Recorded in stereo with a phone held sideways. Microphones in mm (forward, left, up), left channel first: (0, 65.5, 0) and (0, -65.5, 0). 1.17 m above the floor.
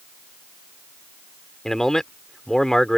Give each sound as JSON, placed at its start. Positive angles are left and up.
{"t": 1.6, "sound": "a man speaking", "side_deg": 5}